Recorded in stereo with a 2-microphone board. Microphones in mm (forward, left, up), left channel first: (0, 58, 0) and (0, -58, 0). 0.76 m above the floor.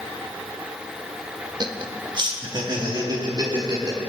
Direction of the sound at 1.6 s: 40° right (ahead or behind).